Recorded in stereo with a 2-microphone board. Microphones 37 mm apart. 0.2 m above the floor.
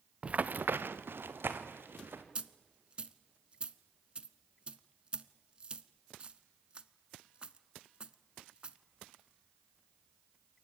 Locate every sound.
0.2 s running footsteps: 30° right (ahead or behind), 0.8 m; by 2.2 s 75° right (ahead or behind), 3 m
2.4 s a dropped coin: 30° right (ahead or behind), 0.8 m